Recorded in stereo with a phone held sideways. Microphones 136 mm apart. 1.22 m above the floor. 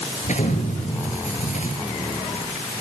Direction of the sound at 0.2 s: 65° left (ahead or behind).